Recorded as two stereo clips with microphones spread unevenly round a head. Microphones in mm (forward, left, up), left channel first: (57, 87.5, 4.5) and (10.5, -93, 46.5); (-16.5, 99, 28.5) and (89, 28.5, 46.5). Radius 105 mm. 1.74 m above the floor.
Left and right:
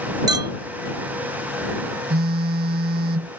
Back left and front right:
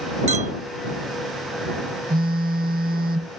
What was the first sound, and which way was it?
A clink, 50° right.